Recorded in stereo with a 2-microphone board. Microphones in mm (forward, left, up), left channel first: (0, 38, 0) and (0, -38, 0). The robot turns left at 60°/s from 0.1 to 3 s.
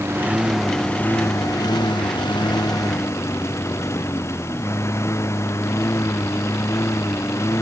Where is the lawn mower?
145° right; by 7.6 s 40° left.